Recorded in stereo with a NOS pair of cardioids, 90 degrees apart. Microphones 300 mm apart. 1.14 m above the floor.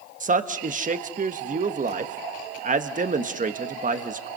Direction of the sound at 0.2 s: 25° right.